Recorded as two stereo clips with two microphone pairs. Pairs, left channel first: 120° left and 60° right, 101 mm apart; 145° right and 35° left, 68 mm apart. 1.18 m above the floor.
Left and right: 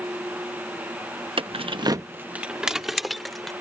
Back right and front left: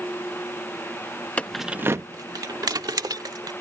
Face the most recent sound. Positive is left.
turn(degrees=30)